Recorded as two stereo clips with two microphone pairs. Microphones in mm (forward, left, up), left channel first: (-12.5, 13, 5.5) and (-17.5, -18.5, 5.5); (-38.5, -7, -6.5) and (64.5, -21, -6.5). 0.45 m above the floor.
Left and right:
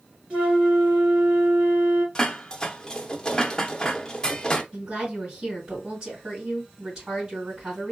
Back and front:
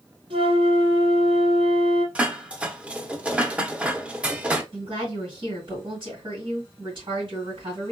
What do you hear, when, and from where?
0.3 s a flute: 40° right, 2.5 m
2.1 s dishes clattering: 50° left, 0.6 m
4.7 s a woman speaking: 35° right, 2.5 m